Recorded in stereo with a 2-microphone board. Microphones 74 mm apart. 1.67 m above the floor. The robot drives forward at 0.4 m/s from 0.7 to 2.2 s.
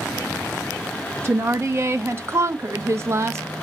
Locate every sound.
1.2 s a woman speaking: 35° right (ahead or behind), 0.6 m